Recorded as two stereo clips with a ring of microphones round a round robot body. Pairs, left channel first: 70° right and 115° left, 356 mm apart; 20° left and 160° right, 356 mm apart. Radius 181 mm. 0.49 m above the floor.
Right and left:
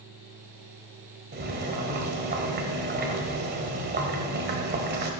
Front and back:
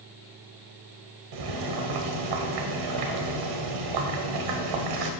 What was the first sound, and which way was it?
Boiling, 175° left.